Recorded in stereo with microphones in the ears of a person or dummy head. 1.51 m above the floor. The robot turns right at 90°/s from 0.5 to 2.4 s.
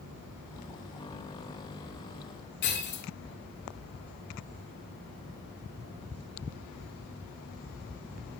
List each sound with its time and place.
2.6 s breaking glass: 55° left (ahead or behind), 1.7 m